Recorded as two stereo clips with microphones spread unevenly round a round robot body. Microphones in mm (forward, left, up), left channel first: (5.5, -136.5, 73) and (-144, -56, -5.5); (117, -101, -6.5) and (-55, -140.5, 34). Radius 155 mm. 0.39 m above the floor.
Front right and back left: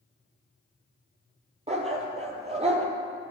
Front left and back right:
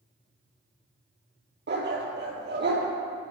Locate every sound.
1.7 s a dog barking: 150° right, 2.5 m